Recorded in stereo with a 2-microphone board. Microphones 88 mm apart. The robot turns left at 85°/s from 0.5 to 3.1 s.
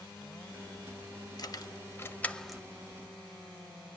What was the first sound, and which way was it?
Keys jangling, 50° left (ahead or behind).